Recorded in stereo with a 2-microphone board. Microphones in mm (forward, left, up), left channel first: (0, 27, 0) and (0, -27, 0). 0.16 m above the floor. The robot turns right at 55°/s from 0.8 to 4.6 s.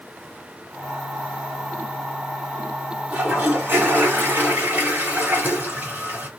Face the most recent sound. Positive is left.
turn(degrees=-60)